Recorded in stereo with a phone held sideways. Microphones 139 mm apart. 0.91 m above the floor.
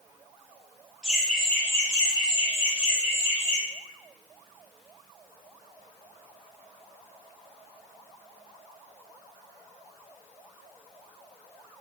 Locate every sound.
1.0 s laughter: 5° right (ahead or behind), 0.9 m; by 3.6 s 40° left (ahead or behind), 1.2 m